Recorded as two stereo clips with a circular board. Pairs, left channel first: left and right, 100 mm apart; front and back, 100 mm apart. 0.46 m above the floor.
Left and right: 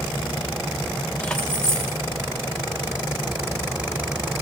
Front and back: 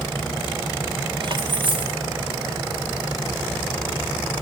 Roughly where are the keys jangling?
Behind.